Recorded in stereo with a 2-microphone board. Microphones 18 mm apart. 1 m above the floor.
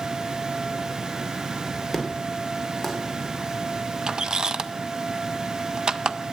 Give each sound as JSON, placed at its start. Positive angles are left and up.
{"t": 1.9, "sound": "an explosion", "side_deg": -10, "distance_m": 2.5}
{"t": 4.1, "sound": "a squeak", "side_deg": -45, "distance_m": 0.5}